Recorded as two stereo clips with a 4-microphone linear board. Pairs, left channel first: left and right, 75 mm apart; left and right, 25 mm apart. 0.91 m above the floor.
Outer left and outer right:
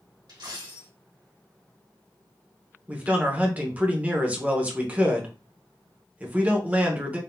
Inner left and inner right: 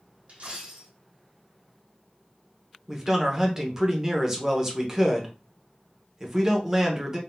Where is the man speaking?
20° right (ahead or behind), 0.8 m.